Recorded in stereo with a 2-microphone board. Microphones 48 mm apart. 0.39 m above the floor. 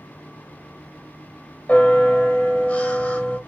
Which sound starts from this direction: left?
A bell, at 1.7 s.